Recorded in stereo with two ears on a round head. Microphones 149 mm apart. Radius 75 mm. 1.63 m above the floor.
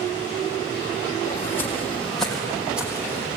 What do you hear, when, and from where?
1.2 s footsteps: 20° left (ahead or behind), 4 m; by 3.3 s 15° right (ahead or behind), 4 m